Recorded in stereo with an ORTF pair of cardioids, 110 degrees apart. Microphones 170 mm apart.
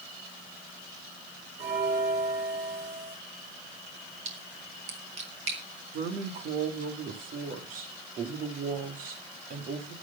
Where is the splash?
40° right, 5 m.